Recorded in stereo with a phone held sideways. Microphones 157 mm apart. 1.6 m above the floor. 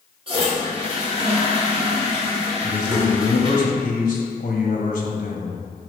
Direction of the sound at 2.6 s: 55° left (ahead or behind).